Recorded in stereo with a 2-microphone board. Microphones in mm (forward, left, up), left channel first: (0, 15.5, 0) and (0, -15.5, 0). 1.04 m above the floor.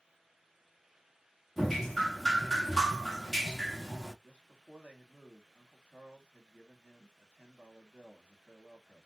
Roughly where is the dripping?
Centre.